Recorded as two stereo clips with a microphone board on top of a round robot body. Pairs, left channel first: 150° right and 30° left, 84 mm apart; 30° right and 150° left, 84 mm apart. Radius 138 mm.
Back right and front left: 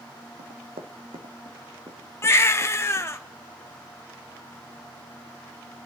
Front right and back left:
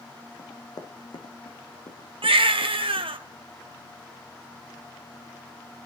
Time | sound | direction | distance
0.4 | running footsteps | 25° left | 1.8 m
2.2 | a baby crying | 150° left | 1.1 m